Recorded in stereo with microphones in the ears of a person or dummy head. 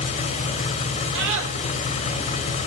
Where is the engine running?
35° left (ahead or behind), 3.5 m.